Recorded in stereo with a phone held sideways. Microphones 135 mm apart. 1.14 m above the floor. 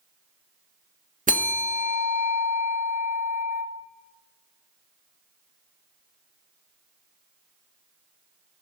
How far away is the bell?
About 1.6 m.